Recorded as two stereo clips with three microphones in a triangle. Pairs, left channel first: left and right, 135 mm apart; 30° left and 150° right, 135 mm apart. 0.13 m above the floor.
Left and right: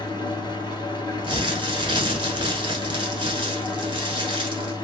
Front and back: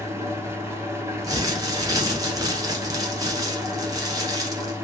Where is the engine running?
140° left, 1.0 m.